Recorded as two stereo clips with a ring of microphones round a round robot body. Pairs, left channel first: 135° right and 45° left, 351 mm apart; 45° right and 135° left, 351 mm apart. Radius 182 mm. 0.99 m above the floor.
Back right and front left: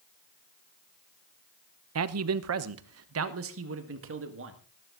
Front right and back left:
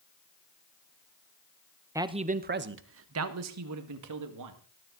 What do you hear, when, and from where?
1.9 s a man speaking: 55° left, 0.9 m; by 4.6 s 100° left, 2.5 m